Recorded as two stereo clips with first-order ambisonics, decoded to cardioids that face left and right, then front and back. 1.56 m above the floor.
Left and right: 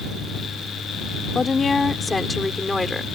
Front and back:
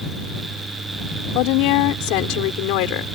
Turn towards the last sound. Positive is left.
turn(degrees=5)